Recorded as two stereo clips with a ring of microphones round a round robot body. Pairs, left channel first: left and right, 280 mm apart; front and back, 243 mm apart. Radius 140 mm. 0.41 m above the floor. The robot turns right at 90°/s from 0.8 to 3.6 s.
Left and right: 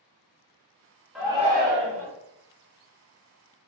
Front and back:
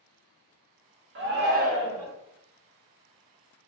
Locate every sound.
1.1 s a shout: 175° right, 1.1 m; by 2.1 s 90° right, 1.1 m